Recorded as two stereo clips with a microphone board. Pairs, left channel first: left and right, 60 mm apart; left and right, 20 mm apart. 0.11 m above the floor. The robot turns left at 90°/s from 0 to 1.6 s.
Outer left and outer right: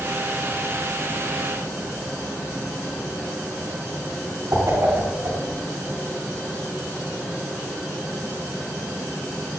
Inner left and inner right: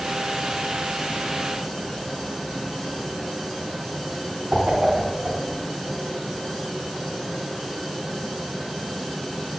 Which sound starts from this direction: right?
A whoosh, at 4.5 s.